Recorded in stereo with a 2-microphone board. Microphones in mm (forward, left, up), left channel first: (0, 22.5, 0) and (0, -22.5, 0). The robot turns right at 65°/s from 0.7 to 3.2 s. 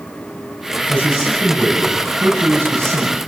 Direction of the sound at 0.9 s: 110° left.